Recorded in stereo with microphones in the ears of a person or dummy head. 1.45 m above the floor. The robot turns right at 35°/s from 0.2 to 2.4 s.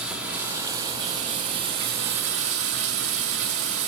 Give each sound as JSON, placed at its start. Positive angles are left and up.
{"t": 0.0, "sound": "running water", "azimuth_deg": -175, "distance_m": 2.0}